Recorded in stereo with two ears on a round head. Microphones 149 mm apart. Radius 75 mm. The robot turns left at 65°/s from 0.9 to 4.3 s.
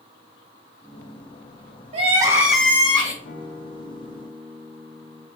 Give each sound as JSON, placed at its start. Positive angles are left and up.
{"t": 1.9, "sound": "crying", "azimuth_deg": -140, "distance_m": 2.0}
{"t": 3.2, "sound": "a guitar", "azimuth_deg": 70, "distance_m": 2.5}